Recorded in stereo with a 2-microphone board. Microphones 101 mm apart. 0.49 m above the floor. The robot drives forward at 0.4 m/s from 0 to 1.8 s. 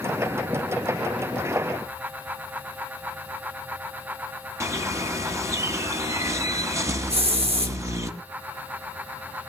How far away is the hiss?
About 4.5 m.